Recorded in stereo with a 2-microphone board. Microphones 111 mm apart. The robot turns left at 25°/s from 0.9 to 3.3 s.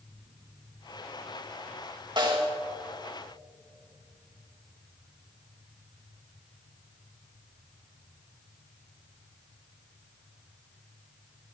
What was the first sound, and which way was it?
A snare drum, 45° right (ahead or behind).